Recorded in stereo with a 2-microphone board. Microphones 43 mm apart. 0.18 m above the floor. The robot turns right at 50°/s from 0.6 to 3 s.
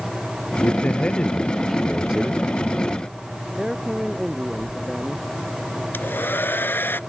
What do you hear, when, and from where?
0.6 s a man speaking: 125° left; by 2.4 s 145° right
3.6 s a man speaking: 15° right (ahead or behind)
5.9 s a hair dryer: 60° left (ahead or behind)